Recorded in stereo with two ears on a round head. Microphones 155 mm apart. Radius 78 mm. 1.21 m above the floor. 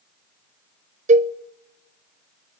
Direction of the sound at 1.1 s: 45° right (ahead or behind).